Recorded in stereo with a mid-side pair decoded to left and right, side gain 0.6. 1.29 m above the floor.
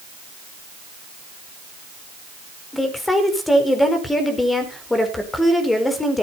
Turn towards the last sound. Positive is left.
turn(degrees=15)